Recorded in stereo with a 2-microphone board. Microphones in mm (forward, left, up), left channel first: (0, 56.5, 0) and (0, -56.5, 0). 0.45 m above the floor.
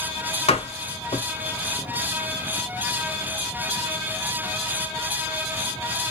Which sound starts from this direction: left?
A door slam, at 0.5 s.